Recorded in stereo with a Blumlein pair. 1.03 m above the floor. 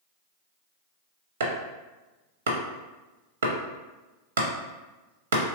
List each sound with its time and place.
1.4 s chopping: 60° right, 0.6 m